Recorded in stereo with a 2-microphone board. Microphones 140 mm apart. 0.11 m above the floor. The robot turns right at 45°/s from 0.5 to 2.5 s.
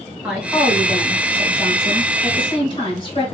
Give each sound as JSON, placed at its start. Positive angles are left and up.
{"t": 0.2, "sound": "a woman speaking", "azimuth_deg": -15, "distance_m": 1.5}